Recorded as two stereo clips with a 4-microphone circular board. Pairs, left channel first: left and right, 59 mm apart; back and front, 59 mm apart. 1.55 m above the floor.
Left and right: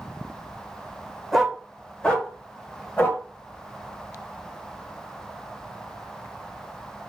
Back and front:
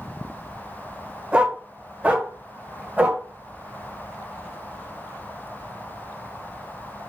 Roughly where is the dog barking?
Ahead.